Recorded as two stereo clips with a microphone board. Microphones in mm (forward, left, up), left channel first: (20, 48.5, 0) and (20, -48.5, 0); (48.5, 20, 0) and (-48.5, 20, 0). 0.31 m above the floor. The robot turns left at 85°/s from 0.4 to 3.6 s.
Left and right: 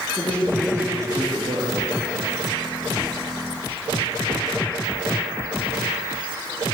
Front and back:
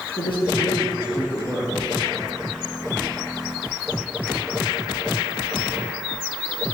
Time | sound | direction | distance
0.2 | a man speaking | 15° left | 6 m